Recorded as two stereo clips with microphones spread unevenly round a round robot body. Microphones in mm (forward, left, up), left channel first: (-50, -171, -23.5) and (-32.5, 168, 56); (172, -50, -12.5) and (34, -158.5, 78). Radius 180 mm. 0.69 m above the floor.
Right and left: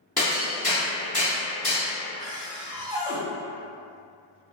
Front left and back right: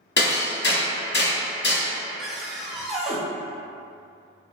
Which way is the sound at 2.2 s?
5° right.